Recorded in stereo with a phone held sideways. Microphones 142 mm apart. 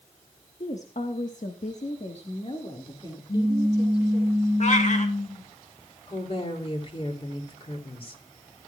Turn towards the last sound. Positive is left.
turn(degrees=40)  # may be behind; listen again after turning